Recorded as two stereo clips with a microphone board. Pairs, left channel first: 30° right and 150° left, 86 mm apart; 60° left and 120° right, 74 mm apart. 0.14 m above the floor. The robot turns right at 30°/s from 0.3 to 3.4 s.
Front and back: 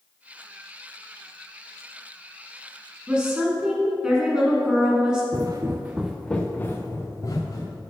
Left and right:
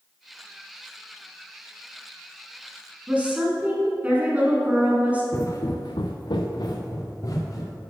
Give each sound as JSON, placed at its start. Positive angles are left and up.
{"t": 3.1, "sound": "a woman speaking", "azimuth_deg": -155, "distance_m": 1.2}
{"t": 5.3, "sound": "footsteps", "azimuth_deg": 115, "distance_m": 1.0}